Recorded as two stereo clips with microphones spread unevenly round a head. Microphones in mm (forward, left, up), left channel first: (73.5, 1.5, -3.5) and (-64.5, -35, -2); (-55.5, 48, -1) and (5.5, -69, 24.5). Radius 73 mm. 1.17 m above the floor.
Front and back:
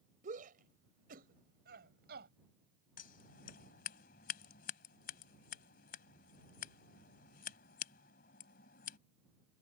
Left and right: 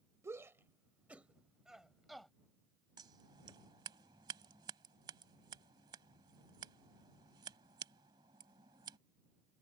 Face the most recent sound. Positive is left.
turn(degrees=-5)